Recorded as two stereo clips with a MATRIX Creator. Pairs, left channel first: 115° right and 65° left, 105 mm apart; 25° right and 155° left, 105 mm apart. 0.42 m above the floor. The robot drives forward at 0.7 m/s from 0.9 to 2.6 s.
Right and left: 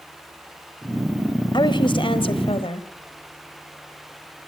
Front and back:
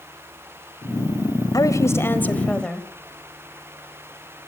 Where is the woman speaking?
75° right, 1.6 m; by 2.9 s 105° right, 1.6 m.